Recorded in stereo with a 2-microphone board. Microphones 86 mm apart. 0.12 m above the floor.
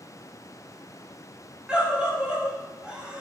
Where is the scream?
10° right (ahead or behind), 6.5 m.